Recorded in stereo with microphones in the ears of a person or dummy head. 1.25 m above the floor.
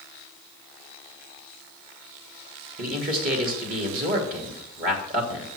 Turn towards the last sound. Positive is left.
turn(degrees=-40)  # may be behind; listen again after turning